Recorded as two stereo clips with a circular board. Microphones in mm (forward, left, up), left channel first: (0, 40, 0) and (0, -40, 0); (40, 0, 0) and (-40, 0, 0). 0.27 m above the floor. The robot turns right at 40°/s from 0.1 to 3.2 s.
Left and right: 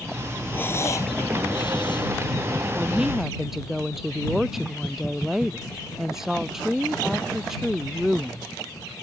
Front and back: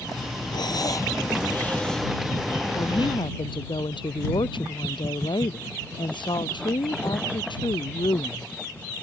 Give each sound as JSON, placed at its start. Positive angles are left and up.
{"t": 0.5, "sound": "breathing", "azimuth_deg": 25}
{"t": 2.8, "sound": "a woman speaking", "azimuth_deg": -20}